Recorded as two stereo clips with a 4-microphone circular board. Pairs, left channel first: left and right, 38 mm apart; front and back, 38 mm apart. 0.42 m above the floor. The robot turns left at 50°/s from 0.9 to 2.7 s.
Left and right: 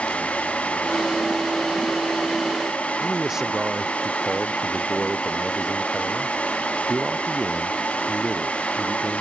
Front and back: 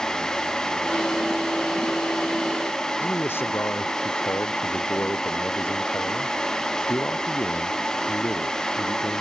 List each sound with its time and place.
3.0 s a man speaking: 15° right